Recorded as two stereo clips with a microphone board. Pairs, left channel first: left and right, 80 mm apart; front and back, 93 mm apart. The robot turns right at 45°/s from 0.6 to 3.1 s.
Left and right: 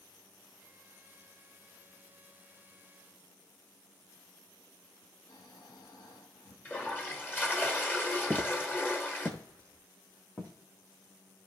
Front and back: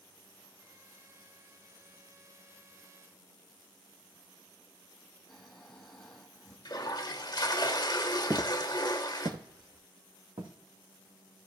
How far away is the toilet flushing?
About 1.0 m.